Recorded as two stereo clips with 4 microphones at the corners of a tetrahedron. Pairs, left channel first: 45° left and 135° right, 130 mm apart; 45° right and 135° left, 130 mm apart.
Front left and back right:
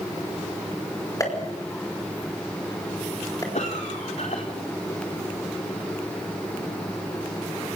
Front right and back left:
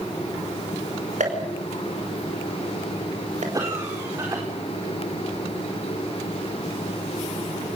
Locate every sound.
1.2 s a pop: 110° left, 5 m
3.5 s a cough: 70° left, 4.5 m